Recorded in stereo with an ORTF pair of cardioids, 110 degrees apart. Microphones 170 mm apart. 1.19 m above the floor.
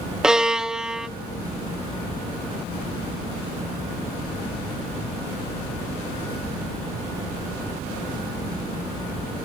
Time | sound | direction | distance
0.2 | a violin | 5° right | 0.9 m